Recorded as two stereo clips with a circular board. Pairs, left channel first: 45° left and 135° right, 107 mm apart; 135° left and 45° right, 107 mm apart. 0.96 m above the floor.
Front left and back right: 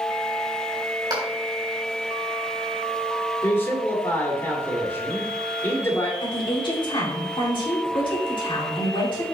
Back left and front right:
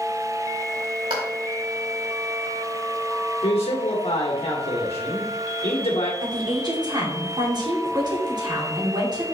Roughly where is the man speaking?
Left.